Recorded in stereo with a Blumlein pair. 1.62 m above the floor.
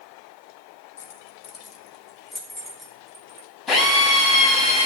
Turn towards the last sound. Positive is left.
turn(degrees=15)